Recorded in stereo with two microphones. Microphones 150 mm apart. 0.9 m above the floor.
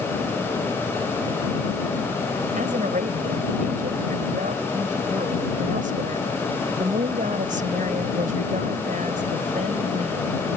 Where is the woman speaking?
60° right (ahead or behind).